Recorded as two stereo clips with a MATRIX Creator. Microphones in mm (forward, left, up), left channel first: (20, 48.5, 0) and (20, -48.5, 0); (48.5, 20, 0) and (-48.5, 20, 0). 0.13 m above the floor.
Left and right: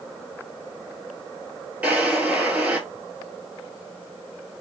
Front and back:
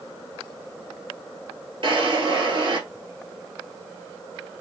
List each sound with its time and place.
1.8 s a drawer: 160° right, 1.3 m